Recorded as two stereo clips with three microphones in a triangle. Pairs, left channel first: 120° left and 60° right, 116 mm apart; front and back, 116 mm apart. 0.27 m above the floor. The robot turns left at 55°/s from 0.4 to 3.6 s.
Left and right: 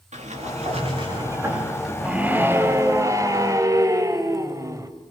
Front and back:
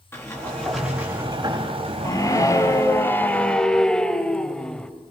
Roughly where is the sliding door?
Ahead right.